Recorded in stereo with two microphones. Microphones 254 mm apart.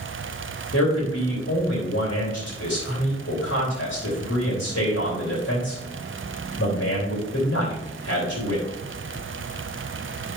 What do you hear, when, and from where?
0.7 s a man speaking: 75° left (ahead or behind), 3.5 m